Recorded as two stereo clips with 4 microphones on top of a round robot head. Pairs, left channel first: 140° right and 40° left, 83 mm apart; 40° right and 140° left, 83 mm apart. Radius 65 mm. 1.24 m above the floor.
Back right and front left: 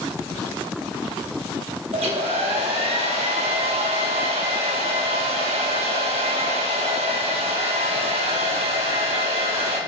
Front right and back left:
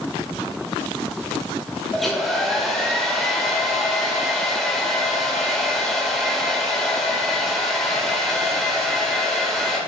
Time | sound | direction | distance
1.9 | a hair dryer | 50° left | 2.5 m